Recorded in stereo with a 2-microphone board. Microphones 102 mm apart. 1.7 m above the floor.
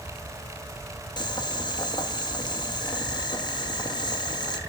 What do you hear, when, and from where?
1.2 s boiling: 45° left (ahead or behind), 1.4 m